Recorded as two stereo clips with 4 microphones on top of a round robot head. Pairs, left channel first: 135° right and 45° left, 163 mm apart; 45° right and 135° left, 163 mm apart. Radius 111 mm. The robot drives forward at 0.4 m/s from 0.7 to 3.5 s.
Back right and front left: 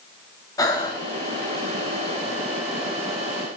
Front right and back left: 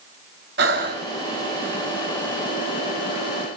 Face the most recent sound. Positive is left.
turn(degrees=170)